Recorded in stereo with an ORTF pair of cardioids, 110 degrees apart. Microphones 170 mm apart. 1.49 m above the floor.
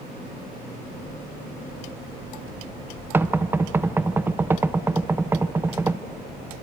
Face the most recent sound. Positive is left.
turn(degrees=-15)